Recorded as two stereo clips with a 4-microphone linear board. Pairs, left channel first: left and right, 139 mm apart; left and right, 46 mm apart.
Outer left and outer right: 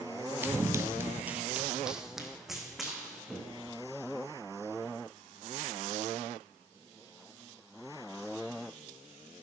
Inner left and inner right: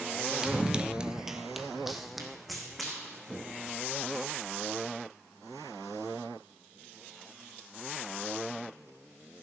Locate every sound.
0.4 s running footsteps: 15° right (ahead or behind), 0.8 m; by 3.8 s centre (ahead or behind), 4 m